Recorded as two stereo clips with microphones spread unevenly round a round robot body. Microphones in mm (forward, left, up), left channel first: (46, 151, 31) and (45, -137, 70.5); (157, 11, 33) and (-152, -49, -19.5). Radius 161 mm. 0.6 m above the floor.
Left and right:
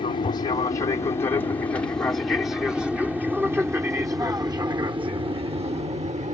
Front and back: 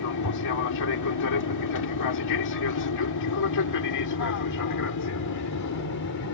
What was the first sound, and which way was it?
An aircraft, 30° left.